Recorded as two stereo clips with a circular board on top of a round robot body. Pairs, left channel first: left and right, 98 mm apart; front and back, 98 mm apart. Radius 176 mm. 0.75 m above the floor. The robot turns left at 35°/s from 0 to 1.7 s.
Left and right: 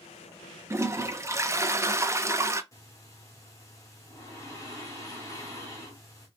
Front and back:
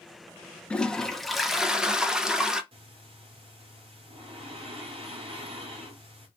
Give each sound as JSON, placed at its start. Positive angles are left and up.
{"t": 0.7, "sound": "a toilet flushing", "azimuth_deg": -70, "distance_m": 0.7}
{"t": 2.7, "sound": "breathing", "azimuth_deg": 150, "distance_m": 0.5}